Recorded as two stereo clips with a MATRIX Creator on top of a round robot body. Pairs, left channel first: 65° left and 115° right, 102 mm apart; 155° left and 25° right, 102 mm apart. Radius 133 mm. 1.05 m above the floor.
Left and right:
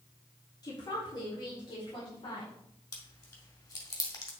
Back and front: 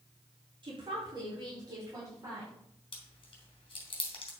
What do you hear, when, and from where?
0.6 s a woman speaking: 15° left, 3.5 m; by 2.5 s 35° left, 5 m
2.9 s chewing: 120° left, 2.5 m